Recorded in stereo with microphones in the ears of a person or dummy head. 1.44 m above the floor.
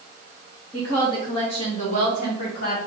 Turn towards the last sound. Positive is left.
turn(degrees=65)  # may be behind; listen again after turning